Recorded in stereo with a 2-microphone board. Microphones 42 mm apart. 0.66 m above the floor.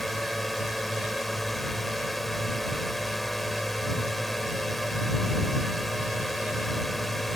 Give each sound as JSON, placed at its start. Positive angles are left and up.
{"t": 0.0, "sound": "a drone", "side_deg": 0}